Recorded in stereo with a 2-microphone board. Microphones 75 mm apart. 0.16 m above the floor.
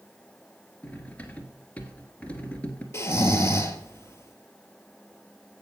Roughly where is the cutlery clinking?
Centre.